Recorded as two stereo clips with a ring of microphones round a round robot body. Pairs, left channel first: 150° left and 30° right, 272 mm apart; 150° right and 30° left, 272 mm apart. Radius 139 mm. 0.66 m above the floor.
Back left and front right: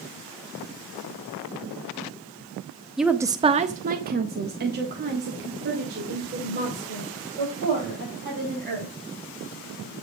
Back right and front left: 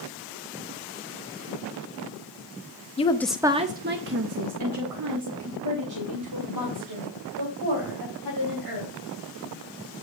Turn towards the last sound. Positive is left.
turn(degrees=25)